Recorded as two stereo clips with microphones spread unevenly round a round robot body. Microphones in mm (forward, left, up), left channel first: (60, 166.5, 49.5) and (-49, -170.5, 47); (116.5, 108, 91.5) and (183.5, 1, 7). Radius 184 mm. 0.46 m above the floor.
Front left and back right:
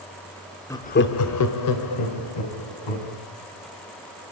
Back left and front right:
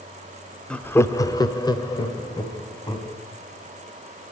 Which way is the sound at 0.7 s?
10° right.